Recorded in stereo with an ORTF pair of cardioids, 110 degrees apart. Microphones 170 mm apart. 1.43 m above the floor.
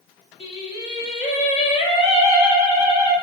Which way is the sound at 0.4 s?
40° left.